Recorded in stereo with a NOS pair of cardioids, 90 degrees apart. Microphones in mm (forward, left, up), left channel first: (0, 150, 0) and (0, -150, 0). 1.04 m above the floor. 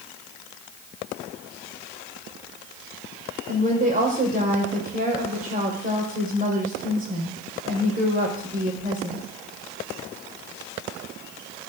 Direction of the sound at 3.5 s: 25° right.